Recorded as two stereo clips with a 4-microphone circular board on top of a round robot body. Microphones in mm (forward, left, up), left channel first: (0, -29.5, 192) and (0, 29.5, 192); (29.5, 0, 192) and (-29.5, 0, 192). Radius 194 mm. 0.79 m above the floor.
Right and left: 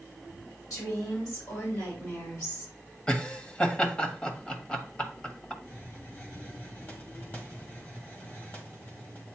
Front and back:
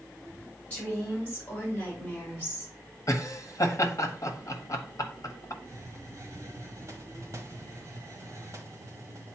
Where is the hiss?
145° right, 1.6 m.